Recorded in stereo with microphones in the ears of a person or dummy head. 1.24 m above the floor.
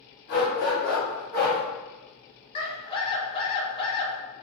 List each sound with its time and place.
0.3 s a dog barking: 45° left (ahead or behind), 1.2 m; by 1.6 s 40° left (ahead or behind), 1.4 m
2.5 s a scream: 30° left (ahead or behind), 0.9 m